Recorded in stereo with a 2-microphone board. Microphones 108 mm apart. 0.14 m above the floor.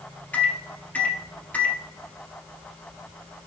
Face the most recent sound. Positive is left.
turn(degrees=15)  # may be behind; listen again after turning